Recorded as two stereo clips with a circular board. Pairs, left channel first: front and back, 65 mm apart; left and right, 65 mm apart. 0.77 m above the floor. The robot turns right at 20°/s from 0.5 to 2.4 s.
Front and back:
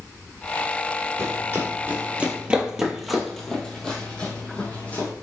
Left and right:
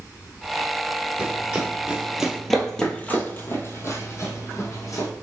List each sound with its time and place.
1.2 s running footsteps: 155° right, 1.1 m; by 5.1 s 65° left, 1.5 m